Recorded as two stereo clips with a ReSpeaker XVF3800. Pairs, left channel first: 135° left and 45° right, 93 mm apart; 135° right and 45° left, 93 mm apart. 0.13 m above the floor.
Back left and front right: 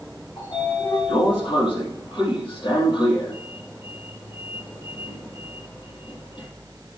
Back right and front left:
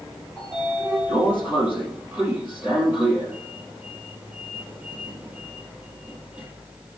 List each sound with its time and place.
0.4 s a sliding door: 115° left, 3.5 m